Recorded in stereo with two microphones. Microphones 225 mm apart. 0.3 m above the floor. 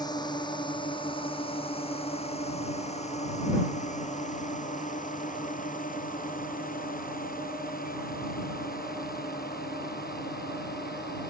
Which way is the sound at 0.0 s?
20° left (ahead or behind).